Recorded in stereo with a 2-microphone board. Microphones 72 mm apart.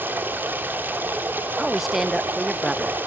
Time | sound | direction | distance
0.0 | running water | 25° right (ahead or behind) | 3 m
1.6 | a woman speaking | centre (ahead or behind) | 0.6 m